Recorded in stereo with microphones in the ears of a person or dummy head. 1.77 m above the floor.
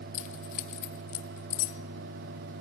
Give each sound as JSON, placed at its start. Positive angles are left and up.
{"t": 0.1, "sound": "keys jangling", "side_deg": 45, "distance_m": 1.6}